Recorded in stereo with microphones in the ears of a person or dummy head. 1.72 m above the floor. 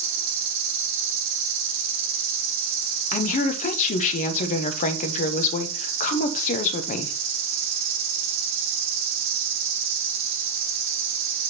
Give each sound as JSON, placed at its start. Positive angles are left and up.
{"t": 0.0, "sound": "an insect", "side_deg": -30, "distance_m": 1.4}
{"t": 3.1, "sound": "a woman speaking", "side_deg": 45, "distance_m": 0.9}